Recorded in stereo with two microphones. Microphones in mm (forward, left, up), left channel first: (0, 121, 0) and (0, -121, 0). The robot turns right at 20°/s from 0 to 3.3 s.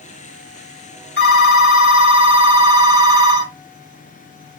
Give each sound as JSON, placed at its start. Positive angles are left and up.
{"t": 1.2, "sound": "a phone ringing", "azimuth_deg": 70, "distance_m": 2.0}